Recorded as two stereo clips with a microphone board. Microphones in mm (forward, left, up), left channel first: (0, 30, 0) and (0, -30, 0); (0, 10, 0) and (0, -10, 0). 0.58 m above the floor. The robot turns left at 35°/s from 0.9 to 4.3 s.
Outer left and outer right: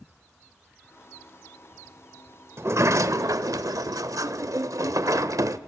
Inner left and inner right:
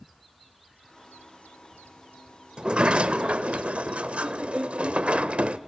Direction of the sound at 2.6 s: 50° right.